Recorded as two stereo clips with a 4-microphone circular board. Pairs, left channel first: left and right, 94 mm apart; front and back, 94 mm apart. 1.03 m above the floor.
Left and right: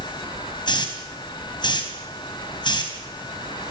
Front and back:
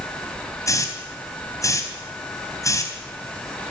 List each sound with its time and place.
0.7 s a hiss: 55° left, 3.5 m